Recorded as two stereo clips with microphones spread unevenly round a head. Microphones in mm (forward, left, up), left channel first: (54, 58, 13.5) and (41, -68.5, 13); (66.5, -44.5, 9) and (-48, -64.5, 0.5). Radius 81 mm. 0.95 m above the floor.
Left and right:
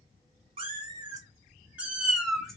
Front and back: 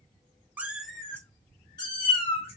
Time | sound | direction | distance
0.6 | a cat meowing | 95° right | 0.7 m